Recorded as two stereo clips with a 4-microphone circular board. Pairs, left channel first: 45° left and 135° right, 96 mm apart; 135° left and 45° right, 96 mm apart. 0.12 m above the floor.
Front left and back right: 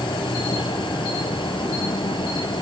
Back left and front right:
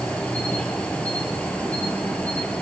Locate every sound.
0.0 s an insect: 60° left, 0.8 m